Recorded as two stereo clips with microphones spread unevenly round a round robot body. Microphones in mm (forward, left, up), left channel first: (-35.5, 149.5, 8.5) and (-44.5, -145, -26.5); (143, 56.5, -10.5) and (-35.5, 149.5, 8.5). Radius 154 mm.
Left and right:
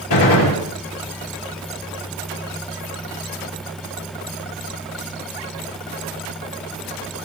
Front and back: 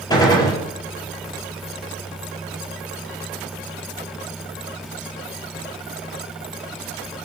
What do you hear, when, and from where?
0.1 s a gunshot: 40° left, 8 m